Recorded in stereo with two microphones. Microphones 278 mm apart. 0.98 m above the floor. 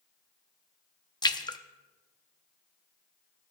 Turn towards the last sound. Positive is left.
turn(degrees=15)  # may be behind; listen again after turning